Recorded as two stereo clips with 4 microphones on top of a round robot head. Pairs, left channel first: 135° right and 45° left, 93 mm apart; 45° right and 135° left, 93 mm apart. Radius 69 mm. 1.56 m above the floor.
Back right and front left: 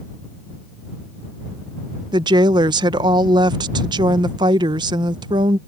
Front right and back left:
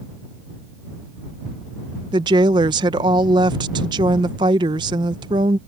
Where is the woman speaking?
90° left.